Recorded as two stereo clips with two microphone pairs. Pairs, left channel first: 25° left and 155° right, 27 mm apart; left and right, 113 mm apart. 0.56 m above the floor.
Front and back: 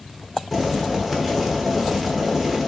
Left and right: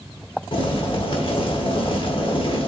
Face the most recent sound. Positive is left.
turn(degrees=115)